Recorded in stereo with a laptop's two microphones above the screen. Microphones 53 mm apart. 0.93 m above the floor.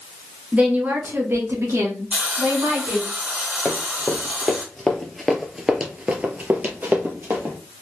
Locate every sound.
0.5 s a woman speaking: 20° right (ahead or behind), 0.8 m; by 3.1 s 75° right (ahead or behind), 1.5 m
2.1 s a hiss: 25° right (ahead or behind), 1.1 m
3.6 s running footsteps: 25° left (ahead or behind), 1.5 m; by 7.5 s 45° right (ahead or behind), 1.4 m